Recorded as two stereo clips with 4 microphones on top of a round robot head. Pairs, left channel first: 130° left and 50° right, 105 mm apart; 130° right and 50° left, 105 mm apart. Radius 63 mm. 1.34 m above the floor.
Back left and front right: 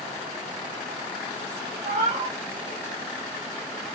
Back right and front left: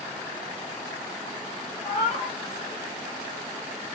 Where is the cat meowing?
85° right, 1.5 m.